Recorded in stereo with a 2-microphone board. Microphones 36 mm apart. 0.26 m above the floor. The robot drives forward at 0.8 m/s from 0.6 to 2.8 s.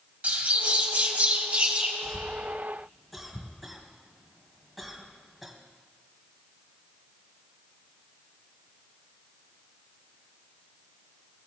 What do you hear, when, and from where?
0.2 s a bird: 40° right (ahead or behind), 1.3 m; by 1.9 s 30° right (ahead or behind), 1.7 m
2.0 s a cough: centre (ahead or behind), 1.2 m